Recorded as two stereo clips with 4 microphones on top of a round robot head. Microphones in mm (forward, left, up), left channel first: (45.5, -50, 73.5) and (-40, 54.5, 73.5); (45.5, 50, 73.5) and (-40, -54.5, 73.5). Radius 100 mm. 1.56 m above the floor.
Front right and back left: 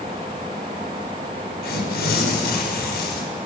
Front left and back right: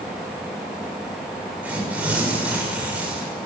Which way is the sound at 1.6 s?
50° right.